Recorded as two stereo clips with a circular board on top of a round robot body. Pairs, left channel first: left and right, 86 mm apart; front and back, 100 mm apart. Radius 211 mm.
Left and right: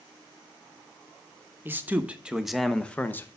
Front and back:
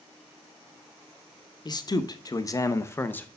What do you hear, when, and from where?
1.6 s a man speaking: 30° right, 1.3 m; by 3.3 s 55° left, 1.0 m